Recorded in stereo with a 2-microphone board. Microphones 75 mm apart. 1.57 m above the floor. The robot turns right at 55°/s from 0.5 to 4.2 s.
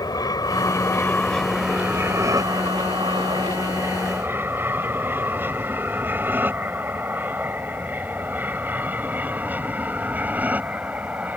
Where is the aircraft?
55° left (ahead or behind); by 11.4 s 20° right (ahead or behind).